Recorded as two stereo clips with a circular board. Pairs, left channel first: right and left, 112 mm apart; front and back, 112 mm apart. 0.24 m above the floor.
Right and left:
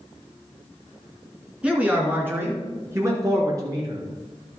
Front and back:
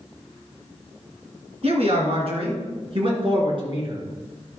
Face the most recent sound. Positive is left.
turn(degrees=140)